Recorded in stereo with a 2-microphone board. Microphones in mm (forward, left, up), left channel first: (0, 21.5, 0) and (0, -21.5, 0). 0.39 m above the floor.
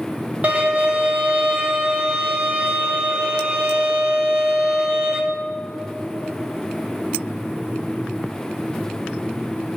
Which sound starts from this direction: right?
A violin, at 0.4 s.